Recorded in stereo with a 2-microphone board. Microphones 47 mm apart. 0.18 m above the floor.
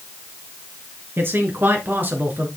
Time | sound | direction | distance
1.2 | a man speaking | 55° right (ahead or behind) | 2.5 m